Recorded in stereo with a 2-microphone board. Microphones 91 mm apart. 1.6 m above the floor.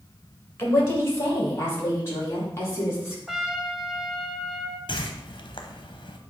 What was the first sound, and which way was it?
A woman speaking, 25° left (ahead or behind).